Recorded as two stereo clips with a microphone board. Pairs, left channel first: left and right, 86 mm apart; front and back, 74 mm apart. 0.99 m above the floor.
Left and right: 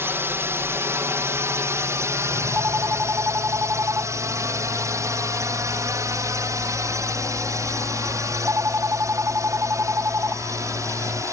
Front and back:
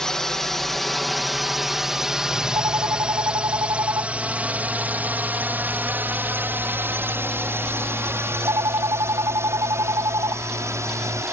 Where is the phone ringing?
150° right.